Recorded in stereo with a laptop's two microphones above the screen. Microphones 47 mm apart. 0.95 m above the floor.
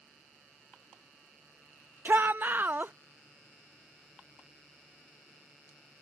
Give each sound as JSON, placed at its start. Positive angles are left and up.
{"t": 2.0, "sound": "a shout", "side_deg": -45}